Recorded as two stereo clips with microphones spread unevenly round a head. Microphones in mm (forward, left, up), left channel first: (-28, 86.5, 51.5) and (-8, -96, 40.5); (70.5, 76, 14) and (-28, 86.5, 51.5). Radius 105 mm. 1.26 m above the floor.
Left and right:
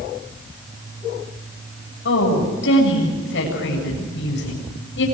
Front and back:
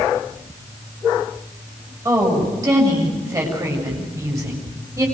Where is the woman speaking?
120° left, 7.5 m.